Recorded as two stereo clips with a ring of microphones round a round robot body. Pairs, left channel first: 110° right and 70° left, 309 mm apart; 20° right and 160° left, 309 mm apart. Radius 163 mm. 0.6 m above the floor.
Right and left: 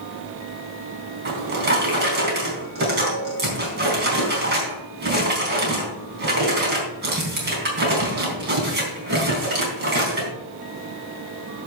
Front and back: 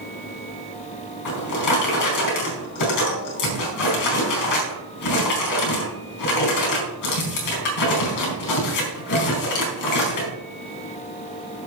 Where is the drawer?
10° left, 4 m.